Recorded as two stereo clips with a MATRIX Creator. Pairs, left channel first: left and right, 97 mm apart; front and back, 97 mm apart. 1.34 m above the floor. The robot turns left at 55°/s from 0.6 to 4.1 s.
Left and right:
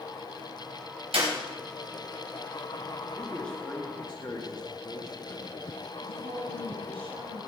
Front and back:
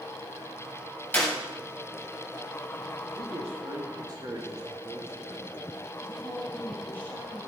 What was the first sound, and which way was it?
A clap, 75° right.